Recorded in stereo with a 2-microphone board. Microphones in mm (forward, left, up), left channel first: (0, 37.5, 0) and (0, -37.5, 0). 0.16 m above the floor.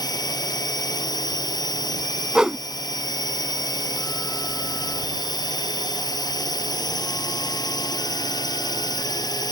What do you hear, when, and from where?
0.0 s a drone: 65° left (ahead or behind)
2.4 s a whoosh: 10° right (ahead or behind)